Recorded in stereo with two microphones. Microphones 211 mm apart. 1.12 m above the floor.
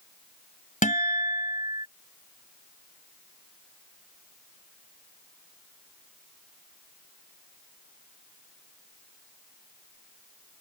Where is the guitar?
40° left (ahead or behind).